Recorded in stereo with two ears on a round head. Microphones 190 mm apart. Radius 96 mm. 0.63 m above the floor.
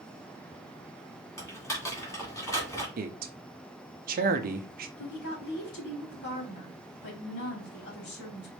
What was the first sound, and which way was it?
Typing on a keyboard, 15° left (ahead or behind).